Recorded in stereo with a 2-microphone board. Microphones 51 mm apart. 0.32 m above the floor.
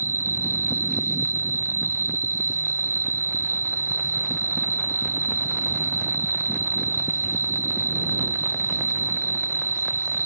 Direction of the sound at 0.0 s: 60° right (ahead or behind).